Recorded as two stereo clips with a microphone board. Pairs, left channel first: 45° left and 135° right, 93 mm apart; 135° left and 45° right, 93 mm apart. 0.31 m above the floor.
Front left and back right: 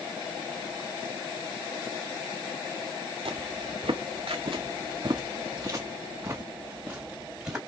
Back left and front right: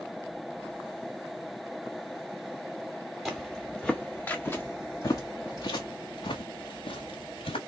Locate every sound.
3.2 s footsteps: 130° right, 1.3 m; by 7.6 s 145° left, 1.9 m